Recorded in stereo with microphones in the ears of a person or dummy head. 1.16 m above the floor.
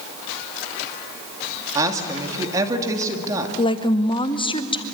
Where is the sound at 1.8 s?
15° right (ahead or behind), 2.5 m.